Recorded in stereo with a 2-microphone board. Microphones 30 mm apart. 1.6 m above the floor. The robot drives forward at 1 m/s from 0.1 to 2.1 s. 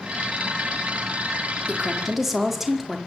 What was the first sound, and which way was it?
A woman speaking, 5° right (ahead or behind).